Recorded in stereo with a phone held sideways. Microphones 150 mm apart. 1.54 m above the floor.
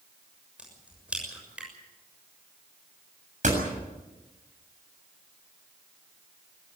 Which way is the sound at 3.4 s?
55° right (ahead or behind).